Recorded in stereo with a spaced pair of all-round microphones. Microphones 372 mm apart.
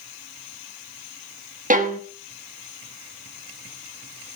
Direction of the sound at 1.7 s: 20° right (ahead or behind).